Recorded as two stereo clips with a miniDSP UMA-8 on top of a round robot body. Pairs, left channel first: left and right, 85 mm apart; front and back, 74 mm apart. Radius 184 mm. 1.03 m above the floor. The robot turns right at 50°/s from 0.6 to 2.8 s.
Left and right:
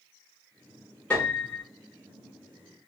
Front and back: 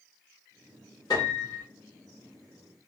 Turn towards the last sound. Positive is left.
turn(degrees=105)